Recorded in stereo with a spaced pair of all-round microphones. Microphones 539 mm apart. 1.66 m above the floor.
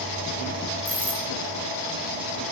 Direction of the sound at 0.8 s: 15° right (ahead or behind).